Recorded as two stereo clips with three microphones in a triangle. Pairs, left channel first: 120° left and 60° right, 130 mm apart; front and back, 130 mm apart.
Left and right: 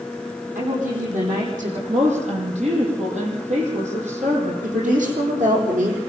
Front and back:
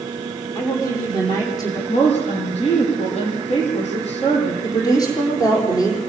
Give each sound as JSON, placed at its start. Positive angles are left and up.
{"t": 0.6, "sound": "a woman speaking", "azimuth_deg": -65, "distance_m": 9.0}
{"t": 1.9, "sound": "a woman speaking", "azimuth_deg": -35, "distance_m": 8.0}
{"t": 4.6, "sound": "a woman speaking", "azimuth_deg": -60, "distance_m": 7.0}